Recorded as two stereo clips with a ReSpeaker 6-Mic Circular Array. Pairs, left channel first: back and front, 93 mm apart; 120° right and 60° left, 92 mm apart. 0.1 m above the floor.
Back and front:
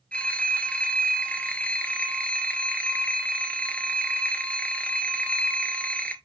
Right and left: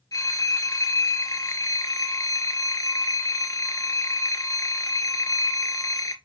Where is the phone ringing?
110° right, 1.1 m.